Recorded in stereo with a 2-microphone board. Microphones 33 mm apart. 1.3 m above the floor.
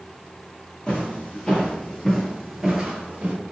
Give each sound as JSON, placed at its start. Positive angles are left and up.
{"t": 0.9, "sound": "footsteps", "side_deg": 35, "distance_m": 1.9}